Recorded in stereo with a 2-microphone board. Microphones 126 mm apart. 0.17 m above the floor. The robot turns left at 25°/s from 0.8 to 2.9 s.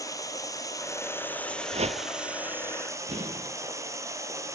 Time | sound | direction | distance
0.0 | running water | 30° left | 2.0 m
1.7 | a whoosh | 55° right (ahead or behind) | 0.6 m
3.1 | an explosion | 55° right (ahead or behind) | 4.5 m